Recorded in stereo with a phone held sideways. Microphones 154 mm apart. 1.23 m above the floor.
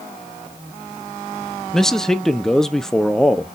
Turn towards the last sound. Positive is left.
turn(degrees=5)  # may be behind; listen again after turning